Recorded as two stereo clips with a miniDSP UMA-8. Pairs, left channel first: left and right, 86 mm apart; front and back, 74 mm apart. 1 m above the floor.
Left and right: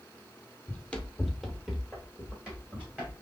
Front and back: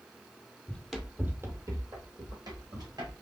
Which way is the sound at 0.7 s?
55° left.